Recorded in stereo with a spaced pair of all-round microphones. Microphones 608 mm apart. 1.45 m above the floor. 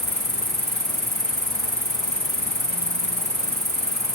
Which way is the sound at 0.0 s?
15° left (ahead or behind).